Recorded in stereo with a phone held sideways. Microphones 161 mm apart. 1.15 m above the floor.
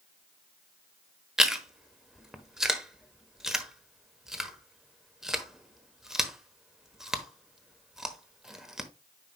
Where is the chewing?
5° right (ahead or behind), 1.1 m.